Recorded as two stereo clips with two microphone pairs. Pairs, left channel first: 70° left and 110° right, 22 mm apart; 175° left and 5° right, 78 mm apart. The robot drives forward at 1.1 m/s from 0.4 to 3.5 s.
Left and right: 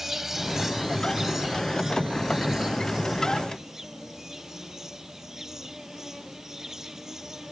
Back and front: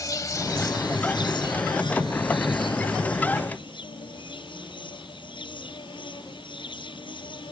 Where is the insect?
175° left; by 7.5 s straight behind.